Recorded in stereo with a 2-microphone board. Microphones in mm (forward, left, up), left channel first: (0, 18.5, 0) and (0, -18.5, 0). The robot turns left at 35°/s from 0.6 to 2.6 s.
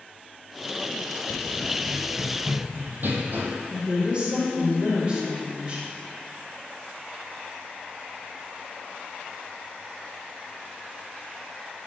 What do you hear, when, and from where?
1.3 s running footsteps: 40° left (ahead or behind), 0.5 m; by 3.5 s 70° right (ahead or behind), 1.4 m
3.7 s a woman speaking: 30° right (ahead or behind), 1.9 m